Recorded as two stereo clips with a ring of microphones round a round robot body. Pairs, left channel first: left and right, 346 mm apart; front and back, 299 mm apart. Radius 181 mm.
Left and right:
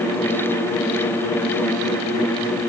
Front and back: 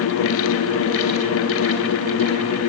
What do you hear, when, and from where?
Only background noise.